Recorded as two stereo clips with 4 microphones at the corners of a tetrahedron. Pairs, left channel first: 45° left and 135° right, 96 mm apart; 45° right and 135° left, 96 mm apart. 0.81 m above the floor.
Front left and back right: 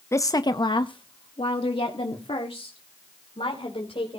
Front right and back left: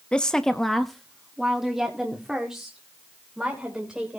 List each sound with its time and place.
0.1 s a woman speaking: 25° left, 0.6 m; by 4.2 s 50° left, 3 m